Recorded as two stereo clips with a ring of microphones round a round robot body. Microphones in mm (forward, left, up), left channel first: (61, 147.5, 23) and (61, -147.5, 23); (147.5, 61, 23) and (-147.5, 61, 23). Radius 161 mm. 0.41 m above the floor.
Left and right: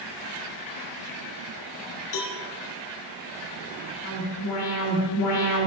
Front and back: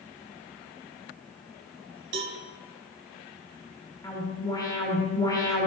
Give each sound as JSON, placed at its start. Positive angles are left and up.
{"t": 2.1, "sound": "a cowbell", "azimuth_deg": 130, "distance_m": 1.1}
{"t": 4.0, "sound": "an alarm", "azimuth_deg": 75, "distance_m": 2.5}